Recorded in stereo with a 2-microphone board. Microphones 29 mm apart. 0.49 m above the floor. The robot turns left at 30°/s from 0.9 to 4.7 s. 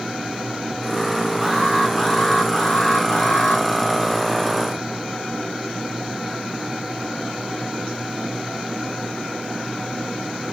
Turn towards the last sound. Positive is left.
turn(degrees=85)